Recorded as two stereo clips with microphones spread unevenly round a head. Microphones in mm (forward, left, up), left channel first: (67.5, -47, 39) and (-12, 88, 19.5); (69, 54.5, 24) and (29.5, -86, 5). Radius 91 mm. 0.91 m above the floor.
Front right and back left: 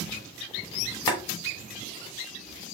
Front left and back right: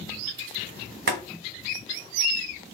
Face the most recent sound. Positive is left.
turn(degrees=-120)